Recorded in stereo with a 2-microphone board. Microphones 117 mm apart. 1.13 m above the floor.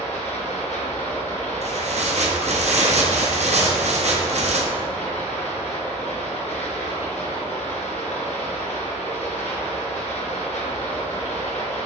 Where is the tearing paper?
75° right (ahead or behind), 0.9 m.